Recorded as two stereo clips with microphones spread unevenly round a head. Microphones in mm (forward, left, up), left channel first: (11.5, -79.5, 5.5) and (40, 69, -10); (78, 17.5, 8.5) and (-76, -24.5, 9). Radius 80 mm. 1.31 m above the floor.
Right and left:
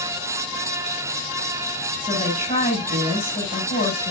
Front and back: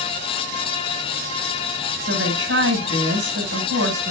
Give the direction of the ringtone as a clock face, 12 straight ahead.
No ringtone in this recording.